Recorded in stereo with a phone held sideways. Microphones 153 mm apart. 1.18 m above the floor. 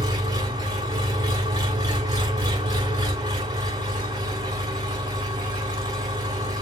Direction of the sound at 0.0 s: 25° right (ahead or behind).